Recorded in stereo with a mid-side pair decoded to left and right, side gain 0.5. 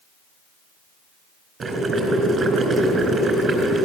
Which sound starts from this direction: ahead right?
Boiling, at 1.6 s.